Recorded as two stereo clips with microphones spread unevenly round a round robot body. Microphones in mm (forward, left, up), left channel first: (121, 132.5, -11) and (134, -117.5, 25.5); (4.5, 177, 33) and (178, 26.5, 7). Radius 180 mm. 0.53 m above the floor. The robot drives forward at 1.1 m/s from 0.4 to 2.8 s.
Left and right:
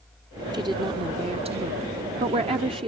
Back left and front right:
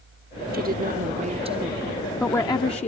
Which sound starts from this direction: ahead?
A woman speaking, at 0.5 s.